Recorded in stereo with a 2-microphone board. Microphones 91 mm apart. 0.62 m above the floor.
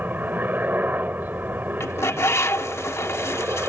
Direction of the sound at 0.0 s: 20° right (ahead or behind).